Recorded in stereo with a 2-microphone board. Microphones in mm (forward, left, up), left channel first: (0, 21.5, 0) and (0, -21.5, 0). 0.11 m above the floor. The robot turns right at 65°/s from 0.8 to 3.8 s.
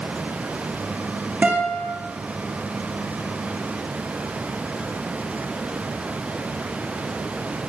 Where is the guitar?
30° right (ahead or behind), 8.5 m; by 1.9 s 55° right (ahead or behind), 8.5 m.